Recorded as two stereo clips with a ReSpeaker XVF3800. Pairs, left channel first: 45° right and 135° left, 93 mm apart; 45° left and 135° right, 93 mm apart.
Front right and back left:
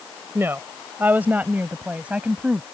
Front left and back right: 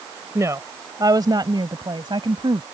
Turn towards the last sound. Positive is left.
turn(degrees=-150)